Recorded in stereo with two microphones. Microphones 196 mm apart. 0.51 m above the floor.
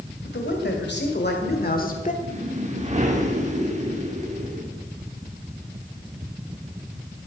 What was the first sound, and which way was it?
A man speaking, 70° left (ahead or behind).